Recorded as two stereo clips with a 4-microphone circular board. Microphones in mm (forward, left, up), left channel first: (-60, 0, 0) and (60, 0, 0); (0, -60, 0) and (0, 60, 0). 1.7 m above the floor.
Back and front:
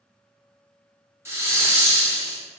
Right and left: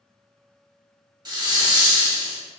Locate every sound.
1.2 s a hiss: 60° left, 0.9 m